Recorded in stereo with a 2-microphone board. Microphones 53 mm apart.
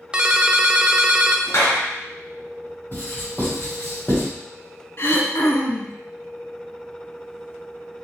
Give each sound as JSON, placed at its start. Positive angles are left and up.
{"t": 0.1, "sound": "a ringtone", "side_deg": -20, "distance_m": 0.6}
{"t": 1.5, "sound": "a clap", "side_deg": 60, "distance_m": 2.5}
{"t": 2.9, "sound": "writing", "side_deg": 40, "distance_m": 1.8}
{"t": 5.0, "sound": "throat clearing", "side_deg": 55, "distance_m": 0.9}